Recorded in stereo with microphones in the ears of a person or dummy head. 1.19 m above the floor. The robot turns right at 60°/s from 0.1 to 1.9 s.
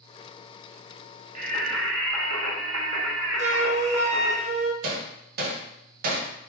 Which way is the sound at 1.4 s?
130° right.